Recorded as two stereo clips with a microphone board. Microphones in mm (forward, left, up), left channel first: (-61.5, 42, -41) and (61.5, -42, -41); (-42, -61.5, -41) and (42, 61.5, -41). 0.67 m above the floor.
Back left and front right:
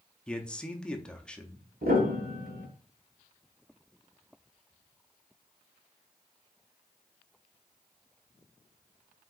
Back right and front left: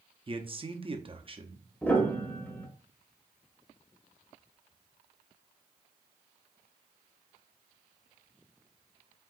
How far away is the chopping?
No chopping in this recording.